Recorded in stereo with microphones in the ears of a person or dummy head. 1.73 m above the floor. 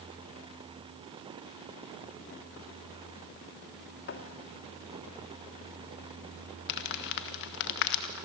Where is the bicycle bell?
No bicycle bell in this recording.